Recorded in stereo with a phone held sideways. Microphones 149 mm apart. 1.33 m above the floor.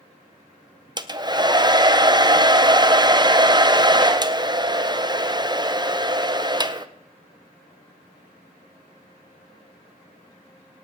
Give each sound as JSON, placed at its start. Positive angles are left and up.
{"t": 1.0, "sound": "a hair dryer", "side_deg": -30, "distance_m": 0.5}